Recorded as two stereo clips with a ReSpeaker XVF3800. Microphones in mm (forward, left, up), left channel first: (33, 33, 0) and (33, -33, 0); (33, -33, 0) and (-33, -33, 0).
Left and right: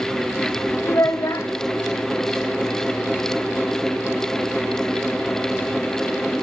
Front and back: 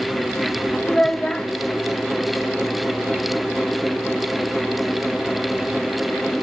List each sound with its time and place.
0.8 s a child speaking: 75° left, 0.8 m